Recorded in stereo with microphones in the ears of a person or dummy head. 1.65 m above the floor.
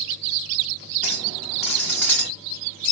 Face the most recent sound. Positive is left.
turn(degrees=5)  # may be behind; listen again after turning